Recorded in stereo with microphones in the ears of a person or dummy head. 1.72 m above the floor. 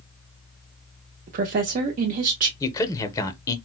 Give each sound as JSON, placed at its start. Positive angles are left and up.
{"t": 1.3, "sound": "a woman speaking", "side_deg": -45, "distance_m": 0.6}
{"t": 2.6, "sound": "a man speaking", "side_deg": 20, "distance_m": 0.5}